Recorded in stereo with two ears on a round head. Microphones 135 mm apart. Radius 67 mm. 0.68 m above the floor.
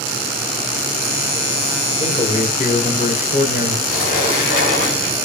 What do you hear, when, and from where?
2.0 s a man speaking: 40° left (ahead or behind), 1.3 m; by 3.8 s 60° left (ahead or behind), 2 m
3.9 s a sliding door: 60° left (ahead or behind), 1.8 m